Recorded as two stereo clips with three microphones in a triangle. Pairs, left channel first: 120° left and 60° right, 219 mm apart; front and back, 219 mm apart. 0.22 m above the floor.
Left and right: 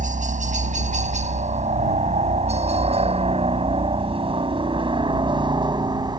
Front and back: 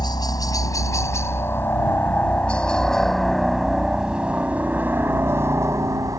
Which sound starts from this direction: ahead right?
A helicopter, at 0.0 s.